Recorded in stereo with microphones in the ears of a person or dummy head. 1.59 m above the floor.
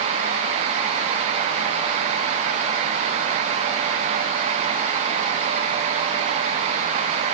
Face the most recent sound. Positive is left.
No sound to turn to.